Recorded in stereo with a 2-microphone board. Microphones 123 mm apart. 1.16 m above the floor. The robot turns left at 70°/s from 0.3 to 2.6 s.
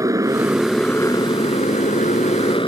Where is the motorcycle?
150° right; by 2.7 s 45° left.